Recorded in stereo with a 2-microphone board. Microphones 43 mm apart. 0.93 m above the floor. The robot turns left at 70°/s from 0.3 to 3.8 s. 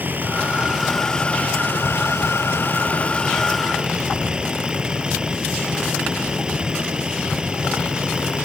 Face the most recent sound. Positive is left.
turn(degrees=-20)